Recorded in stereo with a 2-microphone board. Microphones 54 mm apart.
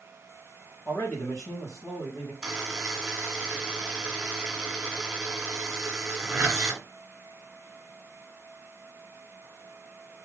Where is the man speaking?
60° left (ahead or behind), 3 m.